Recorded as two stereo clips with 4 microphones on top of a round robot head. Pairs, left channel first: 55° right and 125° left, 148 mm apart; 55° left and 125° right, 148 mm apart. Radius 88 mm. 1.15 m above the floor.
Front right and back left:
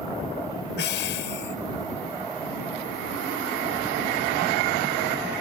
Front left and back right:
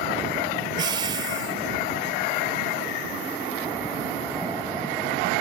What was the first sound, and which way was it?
Breathing, 60° right.